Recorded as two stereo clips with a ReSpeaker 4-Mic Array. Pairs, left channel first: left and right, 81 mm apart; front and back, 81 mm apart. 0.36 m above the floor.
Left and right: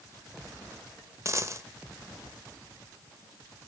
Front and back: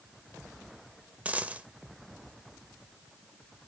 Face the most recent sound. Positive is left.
turn(degrees=-115)